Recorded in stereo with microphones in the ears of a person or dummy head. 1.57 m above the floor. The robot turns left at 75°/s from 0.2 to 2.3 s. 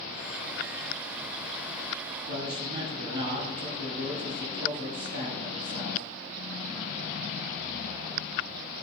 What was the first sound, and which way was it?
A man speaking, 70° right (ahead or behind).